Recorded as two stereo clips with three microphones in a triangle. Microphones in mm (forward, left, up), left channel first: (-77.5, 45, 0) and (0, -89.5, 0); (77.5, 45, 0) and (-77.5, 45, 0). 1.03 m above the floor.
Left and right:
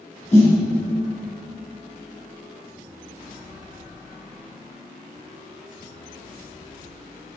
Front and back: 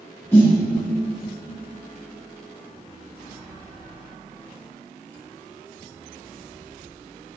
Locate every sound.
0.3 s a snare drum: 75° left, 1.4 m